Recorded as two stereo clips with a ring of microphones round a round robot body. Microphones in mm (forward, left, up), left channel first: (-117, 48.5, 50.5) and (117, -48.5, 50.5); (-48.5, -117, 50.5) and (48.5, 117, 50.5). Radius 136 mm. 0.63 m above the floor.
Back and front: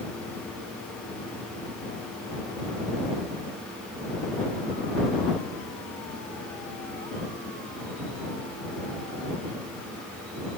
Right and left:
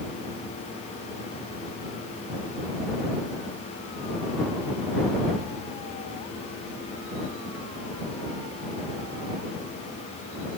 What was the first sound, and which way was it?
Only background noise.